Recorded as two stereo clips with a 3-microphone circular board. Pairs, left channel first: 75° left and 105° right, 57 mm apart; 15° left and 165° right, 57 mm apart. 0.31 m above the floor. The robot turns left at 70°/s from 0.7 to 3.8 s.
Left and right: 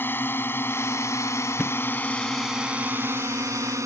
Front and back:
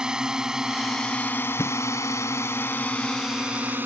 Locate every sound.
0.0 s a drone: 120° left; by 3.9 s 115° right
1.6 s a thud: 5° right; by 1.8 s 15° right